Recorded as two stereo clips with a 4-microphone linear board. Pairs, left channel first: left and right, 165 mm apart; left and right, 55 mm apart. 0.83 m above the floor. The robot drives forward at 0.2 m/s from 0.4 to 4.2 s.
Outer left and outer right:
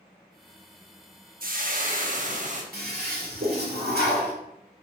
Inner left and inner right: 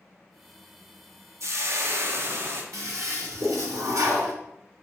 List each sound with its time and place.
1.4 s frying: 60° right (ahead or behind), 0.9 m; by 2.6 s 50° right (ahead or behind), 1.0 m
2.7 s a toilet flushing: 70° right (ahead or behind), 1.4 m; by 4.3 s 85° right, 1.3 m